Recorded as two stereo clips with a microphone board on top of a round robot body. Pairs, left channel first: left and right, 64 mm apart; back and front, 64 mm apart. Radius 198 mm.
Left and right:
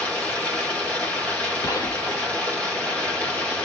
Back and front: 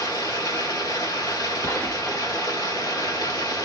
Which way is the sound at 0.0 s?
160° left.